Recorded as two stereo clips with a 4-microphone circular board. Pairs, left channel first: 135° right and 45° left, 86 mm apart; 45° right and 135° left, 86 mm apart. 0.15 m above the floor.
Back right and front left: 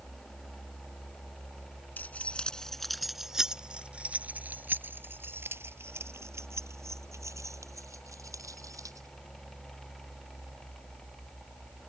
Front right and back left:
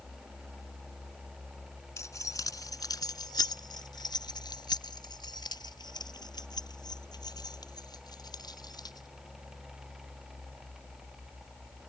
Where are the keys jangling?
75° right; by 9.1 s 5° right.